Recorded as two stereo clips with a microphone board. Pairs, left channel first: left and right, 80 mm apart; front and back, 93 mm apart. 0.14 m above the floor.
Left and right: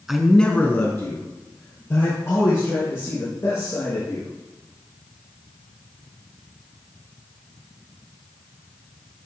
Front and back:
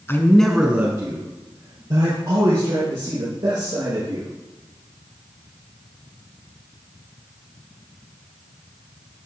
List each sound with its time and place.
0.1 s a man speaking: 10° right, 1.1 m; by 4.3 s 140° left, 6 m